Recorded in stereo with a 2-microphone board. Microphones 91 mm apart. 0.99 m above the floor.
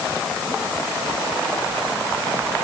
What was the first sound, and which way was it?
Only background noise.